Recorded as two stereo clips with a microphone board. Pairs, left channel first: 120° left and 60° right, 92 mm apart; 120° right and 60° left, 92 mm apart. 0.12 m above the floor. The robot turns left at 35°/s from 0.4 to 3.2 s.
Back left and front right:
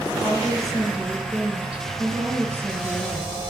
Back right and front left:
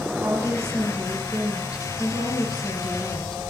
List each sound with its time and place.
0.2 s a woman speaking: 45° left, 1.7 m; by 3.4 s 55° right, 1.7 m